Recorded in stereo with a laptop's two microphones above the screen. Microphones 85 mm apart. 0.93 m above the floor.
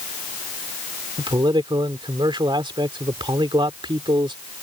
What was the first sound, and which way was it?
A man speaking, 70° right (ahead or behind).